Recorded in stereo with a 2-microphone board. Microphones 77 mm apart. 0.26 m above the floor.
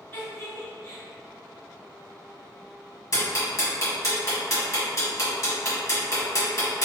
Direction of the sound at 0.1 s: 30° left (ahead or behind).